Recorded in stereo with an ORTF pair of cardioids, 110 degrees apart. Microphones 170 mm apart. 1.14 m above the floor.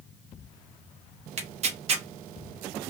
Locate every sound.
1.4 s tearing paper: 40° right, 0.7 m